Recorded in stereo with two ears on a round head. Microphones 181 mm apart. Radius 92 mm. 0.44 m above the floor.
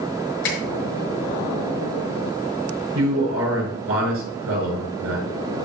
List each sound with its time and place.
0.4 s a finger snap: 60° left (ahead or behind), 5.5 m
3.0 s a man speaking: 70° right (ahead or behind), 5 m